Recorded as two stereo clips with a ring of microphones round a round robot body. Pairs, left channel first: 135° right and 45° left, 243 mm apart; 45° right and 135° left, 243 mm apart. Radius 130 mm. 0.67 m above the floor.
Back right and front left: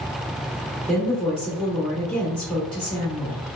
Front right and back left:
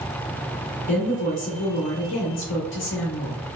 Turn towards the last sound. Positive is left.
turn(degrees=-45)